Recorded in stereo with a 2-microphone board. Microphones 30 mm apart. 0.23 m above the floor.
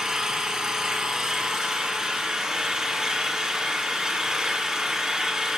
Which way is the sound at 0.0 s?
20° right (ahead or behind).